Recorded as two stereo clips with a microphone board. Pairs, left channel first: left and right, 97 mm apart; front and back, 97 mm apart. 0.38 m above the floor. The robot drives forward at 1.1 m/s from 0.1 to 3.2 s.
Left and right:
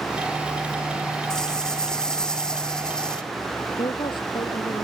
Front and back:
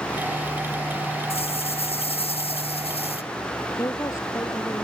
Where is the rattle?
5° left.